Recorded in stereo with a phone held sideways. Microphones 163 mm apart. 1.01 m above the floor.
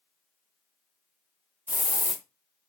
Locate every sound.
1.7 s a hiss: 10° right (ahead or behind), 0.9 m